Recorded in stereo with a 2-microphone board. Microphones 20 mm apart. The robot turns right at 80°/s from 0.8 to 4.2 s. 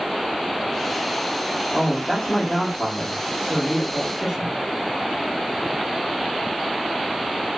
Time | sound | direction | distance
1.7 | a man speaking | 10° right | 1.6 m